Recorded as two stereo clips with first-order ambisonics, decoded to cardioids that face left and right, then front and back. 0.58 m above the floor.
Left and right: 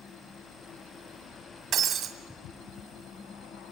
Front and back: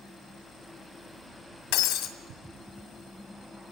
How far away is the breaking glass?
About 2 m.